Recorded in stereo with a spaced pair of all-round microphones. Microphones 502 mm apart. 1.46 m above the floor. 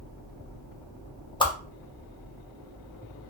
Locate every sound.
1.4 s a whoosh: 10° left (ahead or behind), 0.5 m